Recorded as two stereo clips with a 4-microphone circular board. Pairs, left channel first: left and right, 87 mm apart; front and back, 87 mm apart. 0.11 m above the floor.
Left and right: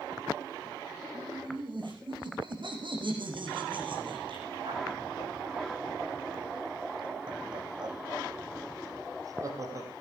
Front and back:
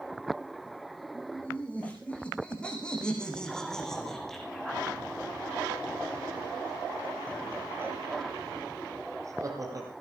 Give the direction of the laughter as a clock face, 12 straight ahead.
2 o'clock.